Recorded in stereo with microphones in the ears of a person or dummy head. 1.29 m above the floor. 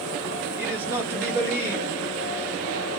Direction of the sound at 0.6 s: 20° right (ahead or behind).